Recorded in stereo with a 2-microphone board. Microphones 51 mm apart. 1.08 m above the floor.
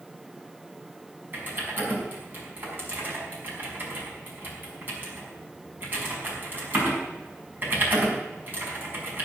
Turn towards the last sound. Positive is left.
turn(degrees=-40)  # may be behind; listen again after turning